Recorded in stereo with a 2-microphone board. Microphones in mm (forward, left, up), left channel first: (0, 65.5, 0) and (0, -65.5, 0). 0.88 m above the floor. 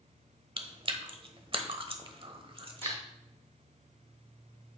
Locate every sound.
0.6 s chewing: 45° right (ahead or behind), 0.8 m
2.8 s dishes clattering: 20° left (ahead or behind), 3.5 m